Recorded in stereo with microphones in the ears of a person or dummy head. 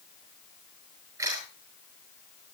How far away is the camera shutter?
About 6.5 m.